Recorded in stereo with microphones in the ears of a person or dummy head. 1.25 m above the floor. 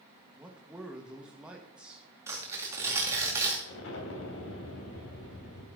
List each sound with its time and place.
0.4 s a man speaking: 5° right (ahead or behind), 1.4 m
2.3 s tearing paper: 15° right (ahead or behind), 2 m
3.6 s an explosion: 75° left (ahead or behind), 3 m